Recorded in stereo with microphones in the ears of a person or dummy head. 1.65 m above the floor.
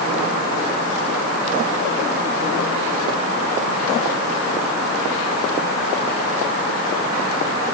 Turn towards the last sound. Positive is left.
No sound to turn to.